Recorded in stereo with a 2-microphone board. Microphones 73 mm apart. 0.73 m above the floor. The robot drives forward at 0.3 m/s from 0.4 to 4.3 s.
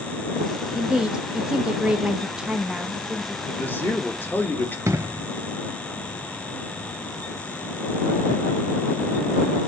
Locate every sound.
0.8 s a woman speaking: 10° right (ahead or behind), 0.5 m; by 3.4 s 5° right (ahead or behind), 0.8 m
3.5 s a man speaking: 25° left (ahead or behind), 1.2 m
4.9 s an explosion: 40° right (ahead or behind), 0.7 m